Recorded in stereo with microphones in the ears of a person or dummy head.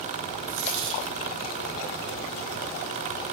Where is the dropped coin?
65° right (ahead or behind), 2 m.